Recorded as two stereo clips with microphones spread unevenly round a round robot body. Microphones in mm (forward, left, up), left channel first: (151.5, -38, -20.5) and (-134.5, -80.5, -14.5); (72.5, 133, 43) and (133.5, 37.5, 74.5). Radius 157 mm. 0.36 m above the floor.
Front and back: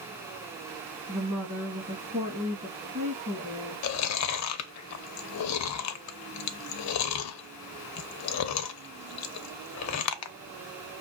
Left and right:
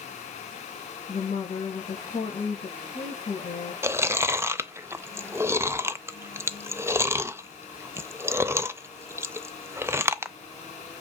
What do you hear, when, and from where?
1.1 s a woman speaking: 125° left, 3 m
3.8 s chewing: 25° left, 0.6 m